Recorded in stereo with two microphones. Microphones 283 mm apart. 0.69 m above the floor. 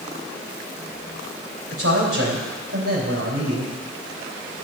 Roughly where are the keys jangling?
No keys jangling in this recording.